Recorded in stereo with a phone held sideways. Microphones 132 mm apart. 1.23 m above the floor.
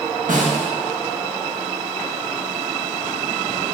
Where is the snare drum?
75° right (ahead or behind), 1.2 m.